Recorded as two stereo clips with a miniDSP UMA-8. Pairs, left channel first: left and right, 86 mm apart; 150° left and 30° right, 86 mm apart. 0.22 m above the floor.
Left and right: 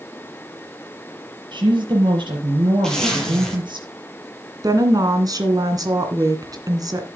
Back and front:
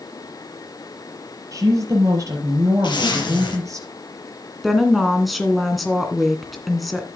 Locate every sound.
1.5 s a woman speaking: 75° right, 5.5 m
2.8 s a zipper: 170° left, 6.5 m
4.6 s a woman speaking: 120° right, 2.5 m